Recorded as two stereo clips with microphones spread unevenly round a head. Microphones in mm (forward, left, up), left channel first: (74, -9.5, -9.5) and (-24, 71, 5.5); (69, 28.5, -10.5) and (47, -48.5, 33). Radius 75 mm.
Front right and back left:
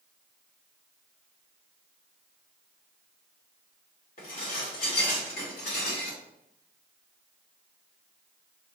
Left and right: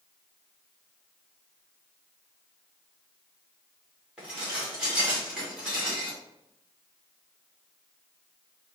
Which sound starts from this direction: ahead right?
Dishes clattering, at 4.2 s.